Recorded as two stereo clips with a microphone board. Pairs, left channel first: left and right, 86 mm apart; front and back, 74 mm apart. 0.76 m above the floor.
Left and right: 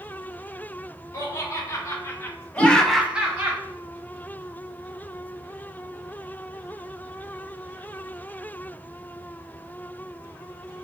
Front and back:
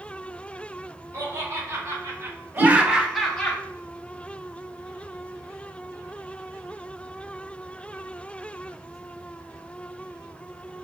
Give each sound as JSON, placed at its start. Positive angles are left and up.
{"t": 1.1, "sound": "laughter", "azimuth_deg": 140, "distance_m": 1.3}
{"t": 2.6, "sound": "a whoosh", "azimuth_deg": -135, "distance_m": 2.0}